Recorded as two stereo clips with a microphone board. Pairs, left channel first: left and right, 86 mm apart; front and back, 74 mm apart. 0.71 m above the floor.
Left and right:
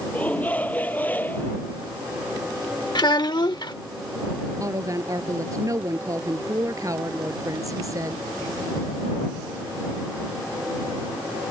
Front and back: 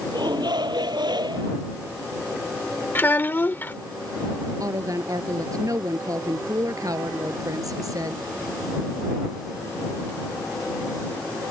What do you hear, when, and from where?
0.1 s a shout: 165° left; by 1.6 s 160° left
3.0 s a child speaking: 60° left
4.6 s a woman speaking: 140° right